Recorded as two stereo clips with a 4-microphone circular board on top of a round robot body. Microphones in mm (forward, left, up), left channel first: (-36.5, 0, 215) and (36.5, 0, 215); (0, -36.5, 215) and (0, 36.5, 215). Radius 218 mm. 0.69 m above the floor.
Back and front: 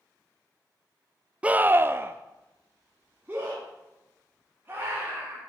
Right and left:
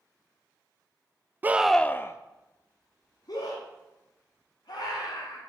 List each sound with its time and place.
1.4 s a scream: 55° left, 0.6 m; by 5.4 s 70° right, 3 m